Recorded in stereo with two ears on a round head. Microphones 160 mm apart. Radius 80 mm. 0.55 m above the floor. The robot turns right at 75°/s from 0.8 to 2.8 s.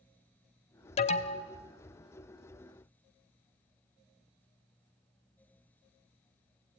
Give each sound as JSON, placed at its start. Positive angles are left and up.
{"t": 1.0, "sound": "an alarm", "azimuth_deg": 85, "distance_m": 1.0}